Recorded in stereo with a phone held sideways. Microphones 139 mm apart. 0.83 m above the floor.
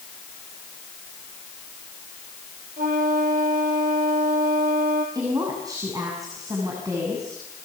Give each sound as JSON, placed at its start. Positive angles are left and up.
{"t": 2.8, "sound": "a flute", "side_deg": -80, "distance_m": 4.5}
{"t": 5.2, "sound": "a woman speaking", "side_deg": -25, "distance_m": 7.5}